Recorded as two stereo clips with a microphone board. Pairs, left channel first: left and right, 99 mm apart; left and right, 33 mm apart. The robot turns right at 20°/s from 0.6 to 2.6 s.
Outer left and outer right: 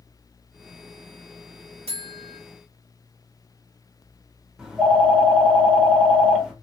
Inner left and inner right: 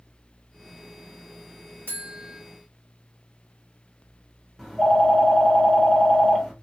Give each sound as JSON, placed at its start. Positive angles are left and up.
{"t": 1.9, "sound": "a buzzer", "side_deg": -85, "distance_m": 0.8}
{"t": 4.6, "sound": "a phone ringing", "side_deg": -5, "distance_m": 0.8}